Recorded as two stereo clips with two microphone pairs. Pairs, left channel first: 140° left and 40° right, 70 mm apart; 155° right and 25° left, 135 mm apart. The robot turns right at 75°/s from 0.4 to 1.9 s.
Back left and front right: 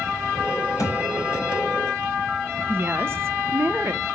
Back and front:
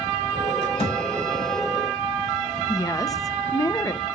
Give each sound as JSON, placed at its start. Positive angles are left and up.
{"t": 0.8, "sound": "a thud", "azimuth_deg": 170, "distance_m": 4.0}
{"t": 2.7, "sound": "a woman speaking", "azimuth_deg": -90, "distance_m": 0.9}